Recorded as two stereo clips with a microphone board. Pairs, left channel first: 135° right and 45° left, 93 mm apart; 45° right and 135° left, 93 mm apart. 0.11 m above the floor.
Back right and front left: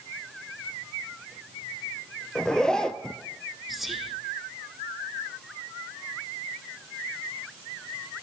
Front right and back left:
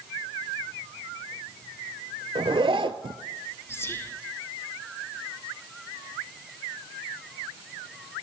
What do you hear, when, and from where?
2.4 s a zipper: 145° left, 0.6 m
3.7 s whispering: 45° right, 1.1 m